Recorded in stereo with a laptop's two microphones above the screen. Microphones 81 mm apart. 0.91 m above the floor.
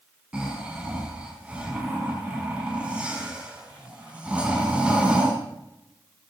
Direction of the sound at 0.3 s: 15° right (ahead or behind).